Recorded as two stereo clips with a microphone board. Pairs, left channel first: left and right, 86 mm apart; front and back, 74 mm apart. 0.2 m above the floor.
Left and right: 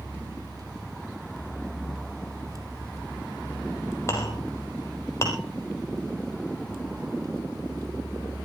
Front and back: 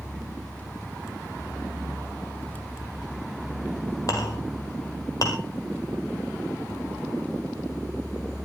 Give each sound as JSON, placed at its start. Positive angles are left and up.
{"t": 4.1, "sound": "a clink", "azimuth_deg": 35, "distance_m": 3.0}